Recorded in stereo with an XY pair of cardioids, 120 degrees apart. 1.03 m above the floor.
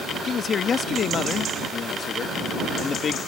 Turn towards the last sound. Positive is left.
turn(degrees=45)